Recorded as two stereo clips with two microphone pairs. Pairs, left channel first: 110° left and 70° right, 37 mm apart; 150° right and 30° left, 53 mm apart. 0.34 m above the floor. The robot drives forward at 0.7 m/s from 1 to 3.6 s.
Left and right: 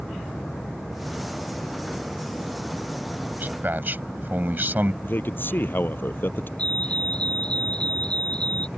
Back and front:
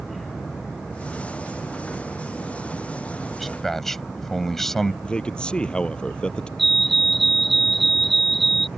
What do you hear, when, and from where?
3.4 s a man speaking: 60° right; by 4.9 s 70° right
5.0 s a man speaking: 140° left
6.6 s a fire alarm: 125° left